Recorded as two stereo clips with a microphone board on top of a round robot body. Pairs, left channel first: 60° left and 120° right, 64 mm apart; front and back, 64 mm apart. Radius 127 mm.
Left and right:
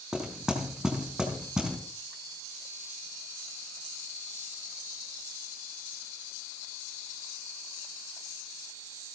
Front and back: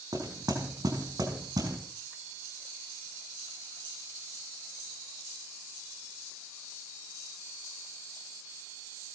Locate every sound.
0.1 s knocking: 160° left, 5 m